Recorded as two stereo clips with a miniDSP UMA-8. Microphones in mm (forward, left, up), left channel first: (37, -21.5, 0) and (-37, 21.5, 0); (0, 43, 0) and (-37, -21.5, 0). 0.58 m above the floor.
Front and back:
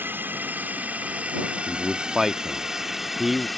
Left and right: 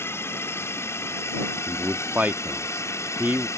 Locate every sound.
0.0 s a drone: 95° left; by 3.6 s 60° left
1.7 s a man speaking: 130° right